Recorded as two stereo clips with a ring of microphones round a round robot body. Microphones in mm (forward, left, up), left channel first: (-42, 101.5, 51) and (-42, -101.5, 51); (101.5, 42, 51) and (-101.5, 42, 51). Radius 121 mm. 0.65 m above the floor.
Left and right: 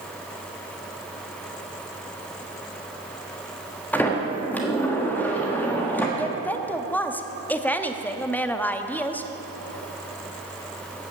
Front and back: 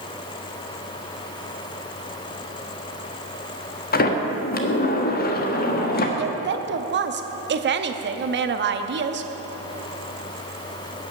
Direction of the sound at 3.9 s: 10° left.